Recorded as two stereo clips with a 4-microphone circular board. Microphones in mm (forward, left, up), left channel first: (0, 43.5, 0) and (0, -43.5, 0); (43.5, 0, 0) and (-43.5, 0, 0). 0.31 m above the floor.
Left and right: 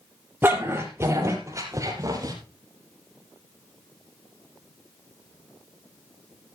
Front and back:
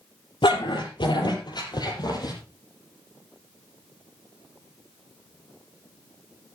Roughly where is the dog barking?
Ahead right.